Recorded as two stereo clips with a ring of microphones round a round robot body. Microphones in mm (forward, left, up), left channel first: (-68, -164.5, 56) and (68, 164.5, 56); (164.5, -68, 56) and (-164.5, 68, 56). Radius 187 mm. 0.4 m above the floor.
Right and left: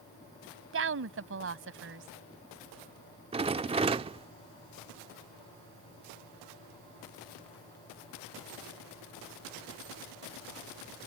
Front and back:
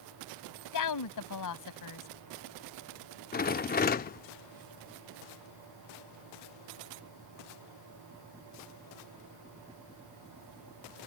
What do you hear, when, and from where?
0.7 s a woman speaking: 15° left
3.3 s a rattle: 10° left